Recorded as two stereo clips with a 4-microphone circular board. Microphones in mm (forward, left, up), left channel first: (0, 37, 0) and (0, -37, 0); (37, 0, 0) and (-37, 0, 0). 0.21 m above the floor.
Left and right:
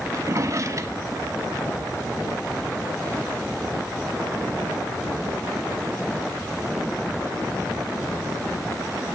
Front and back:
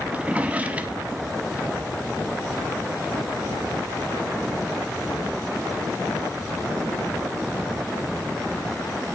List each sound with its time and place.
0.1 s a drawer: 115° right, 0.5 m